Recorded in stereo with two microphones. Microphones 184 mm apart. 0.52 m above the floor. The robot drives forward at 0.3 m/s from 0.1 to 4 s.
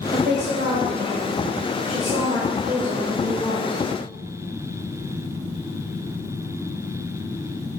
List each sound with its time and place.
0.1 s a woman speaking: 65° right (ahead or behind), 1.9 m; by 3.8 s 55° right (ahead or behind), 2 m